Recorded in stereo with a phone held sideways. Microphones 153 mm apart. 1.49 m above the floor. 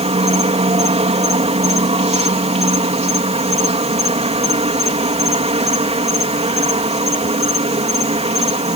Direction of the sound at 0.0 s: 45° right (ahead or behind).